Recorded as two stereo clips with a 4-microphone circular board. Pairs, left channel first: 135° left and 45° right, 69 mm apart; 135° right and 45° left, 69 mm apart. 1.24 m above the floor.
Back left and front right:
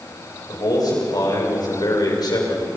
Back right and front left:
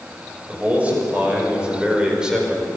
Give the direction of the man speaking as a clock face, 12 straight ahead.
8 o'clock.